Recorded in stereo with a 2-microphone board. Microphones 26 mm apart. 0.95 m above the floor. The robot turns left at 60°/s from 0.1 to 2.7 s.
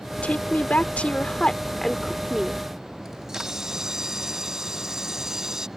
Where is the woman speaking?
110° left; by 2.6 s 35° right.